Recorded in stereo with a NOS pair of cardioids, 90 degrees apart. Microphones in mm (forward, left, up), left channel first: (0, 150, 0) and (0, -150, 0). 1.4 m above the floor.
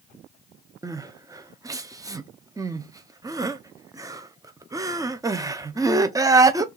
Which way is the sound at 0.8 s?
15° right.